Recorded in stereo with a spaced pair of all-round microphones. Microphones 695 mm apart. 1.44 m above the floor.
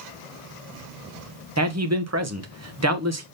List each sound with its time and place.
1.6 s a man speaking: 25° right (ahead or behind), 0.9 m